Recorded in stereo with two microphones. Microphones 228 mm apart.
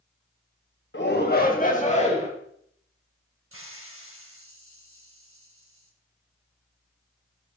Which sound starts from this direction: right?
A hiss, at 3.5 s.